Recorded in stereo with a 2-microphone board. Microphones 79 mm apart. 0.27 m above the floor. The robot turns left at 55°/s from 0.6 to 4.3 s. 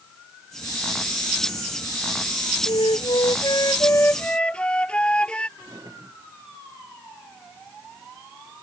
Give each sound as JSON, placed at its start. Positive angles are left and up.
{"t": 2.7, "sound": "a flute", "azimuth_deg": 105}
{"t": 5.6, "sound": "a drawer", "side_deg": -40}